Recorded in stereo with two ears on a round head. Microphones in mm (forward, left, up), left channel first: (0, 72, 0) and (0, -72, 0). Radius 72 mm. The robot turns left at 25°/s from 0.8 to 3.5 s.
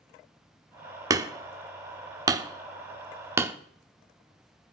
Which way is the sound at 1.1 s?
20° right (ahead or behind).